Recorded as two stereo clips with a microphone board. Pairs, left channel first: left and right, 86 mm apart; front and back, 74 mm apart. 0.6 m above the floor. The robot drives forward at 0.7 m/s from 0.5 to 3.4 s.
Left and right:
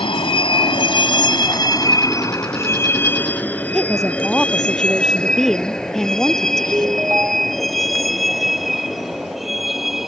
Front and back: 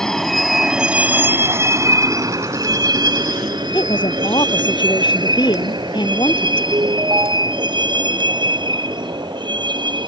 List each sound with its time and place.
0.0 s a vehicle: 85° left; by 10.1 s straight behind
3.7 s a woman speaking: 5° left
6.7 s a ringtone: 155° right